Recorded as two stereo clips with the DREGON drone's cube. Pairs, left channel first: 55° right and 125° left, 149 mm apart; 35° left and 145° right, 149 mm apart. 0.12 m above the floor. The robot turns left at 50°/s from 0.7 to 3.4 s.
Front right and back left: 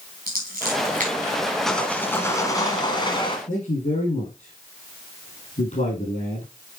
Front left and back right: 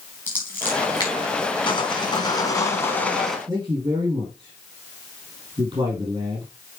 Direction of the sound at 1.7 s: 30° left.